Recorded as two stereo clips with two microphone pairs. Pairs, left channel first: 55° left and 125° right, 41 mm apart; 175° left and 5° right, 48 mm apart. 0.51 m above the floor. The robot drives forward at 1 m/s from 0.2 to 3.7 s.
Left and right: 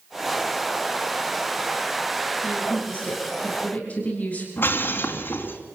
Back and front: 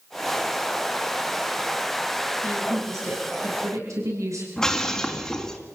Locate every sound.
2.4 s a woman speaking: straight ahead, 8.5 m
4.6 s breaking glass: 95° left, 2.5 m